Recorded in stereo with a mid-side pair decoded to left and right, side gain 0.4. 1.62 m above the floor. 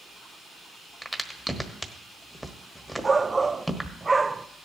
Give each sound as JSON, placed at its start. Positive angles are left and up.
{"t": 1.0, "sound": "a crack", "azimuth_deg": -5, "distance_m": 1.3}
{"t": 3.0, "sound": "a shout", "azimuth_deg": -25, "distance_m": 0.5}